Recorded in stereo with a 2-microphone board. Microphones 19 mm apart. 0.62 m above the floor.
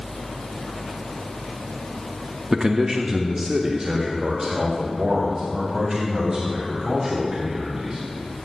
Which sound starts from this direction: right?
A man speaking, at 2.5 s.